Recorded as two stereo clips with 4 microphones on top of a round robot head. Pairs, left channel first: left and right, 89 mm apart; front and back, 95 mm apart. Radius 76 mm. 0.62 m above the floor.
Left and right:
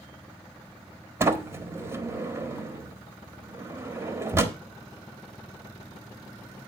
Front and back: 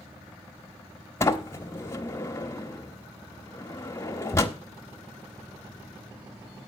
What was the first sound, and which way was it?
A sliding door, 45° right.